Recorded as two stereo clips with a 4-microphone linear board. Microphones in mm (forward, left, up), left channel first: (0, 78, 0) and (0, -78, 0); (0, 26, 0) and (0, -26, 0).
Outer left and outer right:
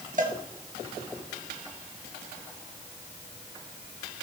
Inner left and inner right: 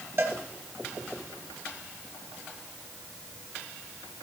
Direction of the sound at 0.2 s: 55° right (ahead or behind).